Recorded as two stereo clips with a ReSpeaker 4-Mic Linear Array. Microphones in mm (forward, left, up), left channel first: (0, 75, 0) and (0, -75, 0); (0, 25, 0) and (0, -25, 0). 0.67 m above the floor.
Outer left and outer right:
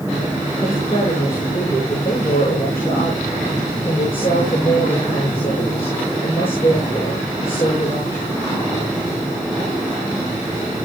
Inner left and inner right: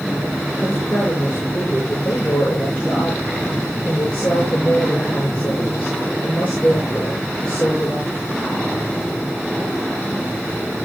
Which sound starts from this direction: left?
A woman speaking, at 0.6 s.